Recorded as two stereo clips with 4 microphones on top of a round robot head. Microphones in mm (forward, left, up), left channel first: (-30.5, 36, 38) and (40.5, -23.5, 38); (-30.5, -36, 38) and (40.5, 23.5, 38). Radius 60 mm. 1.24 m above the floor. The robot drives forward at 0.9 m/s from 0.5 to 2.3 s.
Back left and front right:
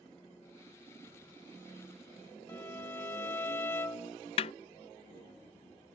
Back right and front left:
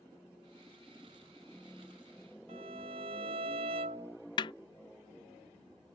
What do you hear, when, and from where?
2.5 s a violin: 70° left
4.4 s a snare drum: 175° left